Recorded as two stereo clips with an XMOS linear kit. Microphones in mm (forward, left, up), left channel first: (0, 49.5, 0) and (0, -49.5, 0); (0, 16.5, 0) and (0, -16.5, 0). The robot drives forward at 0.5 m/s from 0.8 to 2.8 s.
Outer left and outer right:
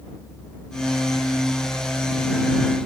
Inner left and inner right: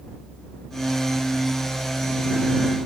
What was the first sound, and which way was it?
Only background noise.